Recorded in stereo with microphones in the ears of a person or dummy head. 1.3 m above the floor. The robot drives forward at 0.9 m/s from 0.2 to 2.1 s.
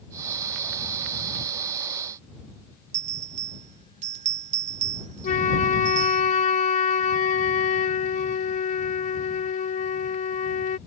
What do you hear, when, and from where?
2.9 s a bell: 45° right (ahead or behind)
5.2 s a flute: 35° left (ahead or behind)